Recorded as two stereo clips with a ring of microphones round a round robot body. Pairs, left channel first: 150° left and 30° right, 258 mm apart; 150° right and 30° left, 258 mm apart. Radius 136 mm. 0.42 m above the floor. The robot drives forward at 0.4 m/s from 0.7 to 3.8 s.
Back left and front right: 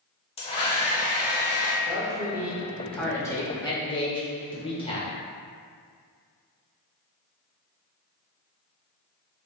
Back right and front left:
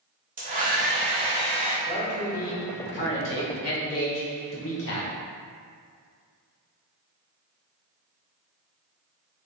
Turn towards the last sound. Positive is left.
turn(degrees=-145)